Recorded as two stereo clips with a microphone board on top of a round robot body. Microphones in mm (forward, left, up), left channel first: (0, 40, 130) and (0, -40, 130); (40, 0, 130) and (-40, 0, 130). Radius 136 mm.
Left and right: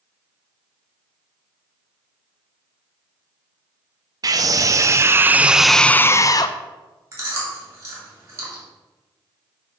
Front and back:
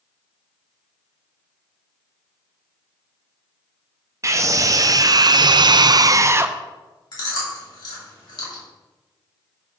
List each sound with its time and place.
4.2 s a scream: 130° right, 1.0 m; by 6.6 s 115° left, 0.6 m
7.1 s chewing: 30° right, 2.5 m